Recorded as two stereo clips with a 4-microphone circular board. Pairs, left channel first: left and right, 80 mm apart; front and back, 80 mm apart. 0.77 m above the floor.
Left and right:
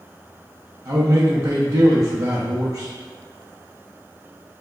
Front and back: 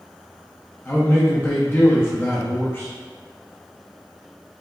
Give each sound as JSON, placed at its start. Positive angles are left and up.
{"t": 0.8, "sound": "a man speaking", "azimuth_deg": -55, "distance_m": 0.6}